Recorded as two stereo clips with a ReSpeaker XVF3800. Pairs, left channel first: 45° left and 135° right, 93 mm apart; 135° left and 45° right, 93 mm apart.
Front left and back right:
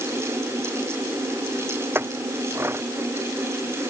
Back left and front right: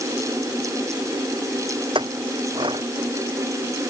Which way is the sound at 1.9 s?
70° right.